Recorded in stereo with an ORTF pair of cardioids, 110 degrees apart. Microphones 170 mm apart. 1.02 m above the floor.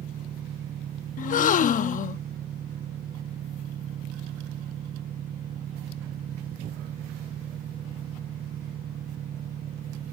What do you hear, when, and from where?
0.0 s an engine running: 55° right
1.2 s a gasp: 50° left